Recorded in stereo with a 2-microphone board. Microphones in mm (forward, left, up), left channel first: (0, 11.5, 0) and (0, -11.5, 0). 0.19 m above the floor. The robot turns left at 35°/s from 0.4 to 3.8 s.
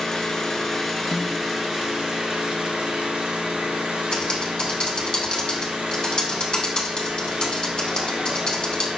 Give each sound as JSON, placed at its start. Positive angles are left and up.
{"t": 0.0, "sound": "an engine running", "azimuth_deg": 20, "distance_m": 1.1}
{"t": 1.1, "sound": "a snare drum", "side_deg": 50, "distance_m": 0.8}
{"t": 4.1, "sound": "typing on a keyboard", "side_deg": 40, "distance_m": 1.1}